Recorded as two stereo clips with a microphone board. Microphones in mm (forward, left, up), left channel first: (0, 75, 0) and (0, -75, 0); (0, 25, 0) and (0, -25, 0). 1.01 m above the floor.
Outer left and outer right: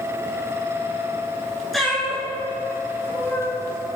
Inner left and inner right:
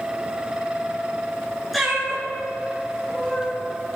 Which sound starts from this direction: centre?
A cat meowing, at 1.7 s.